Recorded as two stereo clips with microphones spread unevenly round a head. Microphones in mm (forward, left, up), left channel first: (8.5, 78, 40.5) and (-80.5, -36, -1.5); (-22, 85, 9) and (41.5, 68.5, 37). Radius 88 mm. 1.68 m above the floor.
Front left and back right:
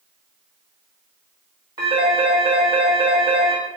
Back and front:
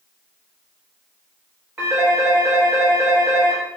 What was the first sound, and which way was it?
A phone ringing, 50° right.